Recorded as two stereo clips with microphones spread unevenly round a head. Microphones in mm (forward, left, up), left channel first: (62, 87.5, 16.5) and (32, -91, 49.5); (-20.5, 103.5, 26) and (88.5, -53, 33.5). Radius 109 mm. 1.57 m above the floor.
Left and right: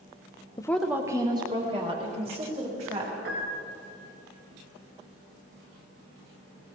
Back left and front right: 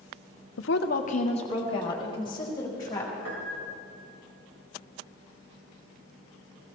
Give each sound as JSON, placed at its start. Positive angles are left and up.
{"t": 0.6, "sound": "a woman speaking", "azimuth_deg": 155, "distance_m": 0.6}
{"t": 3.2, "sound": "a piano", "azimuth_deg": -80, "distance_m": 3.0}